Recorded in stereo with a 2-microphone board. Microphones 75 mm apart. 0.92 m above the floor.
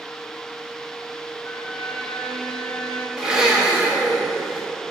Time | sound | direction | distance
1.4 | a violin | 20° left (ahead or behind) | 1.7 m
3.2 | a blender | 10° right (ahead or behind) | 1.7 m